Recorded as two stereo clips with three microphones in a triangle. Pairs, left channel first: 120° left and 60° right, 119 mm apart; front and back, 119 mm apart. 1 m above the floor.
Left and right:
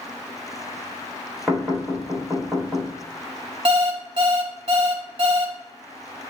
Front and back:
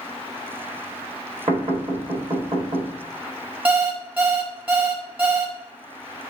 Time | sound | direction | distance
1.5 | knocking | 150° right | 1.7 m
3.6 | an alarm clock | 105° right | 0.8 m